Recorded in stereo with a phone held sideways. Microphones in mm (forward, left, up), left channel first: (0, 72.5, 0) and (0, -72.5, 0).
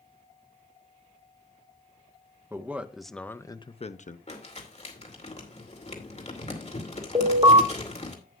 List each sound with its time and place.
2.5 s a man speaking: 15° right (ahead or behind), 1.1 m; by 4.2 s 65° left (ahead or behind), 0.8 m
4.3 s crumpling: 50° left (ahead or behind), 2.5 m
7.2 s an alarm: 35° right (ahead or behind), 2 m